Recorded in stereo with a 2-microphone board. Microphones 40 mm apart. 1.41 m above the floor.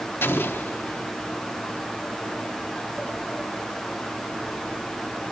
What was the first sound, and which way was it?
An explosion, 75° left (ahead or behind).